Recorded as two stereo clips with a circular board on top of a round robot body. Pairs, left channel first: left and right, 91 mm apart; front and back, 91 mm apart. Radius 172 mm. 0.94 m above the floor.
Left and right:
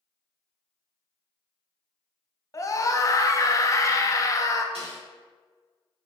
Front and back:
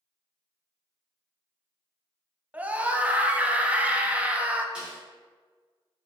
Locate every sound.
2.5 s a scream: 115° left, 0.9 m
4.8 s a snare drum: 100° right, 2.0 m